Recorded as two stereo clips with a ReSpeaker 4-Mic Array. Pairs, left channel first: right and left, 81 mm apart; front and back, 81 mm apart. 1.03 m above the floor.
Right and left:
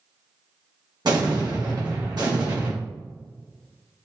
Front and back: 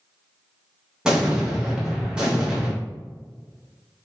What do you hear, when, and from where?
1.1 s an explosion: 105° left, 1.2 m